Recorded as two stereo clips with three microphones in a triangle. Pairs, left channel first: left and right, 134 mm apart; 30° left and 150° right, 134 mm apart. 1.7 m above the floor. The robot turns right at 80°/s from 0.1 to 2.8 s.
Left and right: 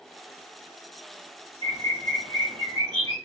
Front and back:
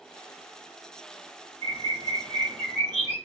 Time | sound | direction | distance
1.6 | a bird | 145° right | 1.4 m